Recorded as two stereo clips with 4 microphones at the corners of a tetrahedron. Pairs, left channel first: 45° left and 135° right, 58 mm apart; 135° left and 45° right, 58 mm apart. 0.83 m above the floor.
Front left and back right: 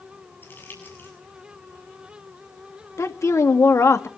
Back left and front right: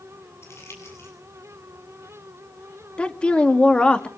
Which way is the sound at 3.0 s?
70° left.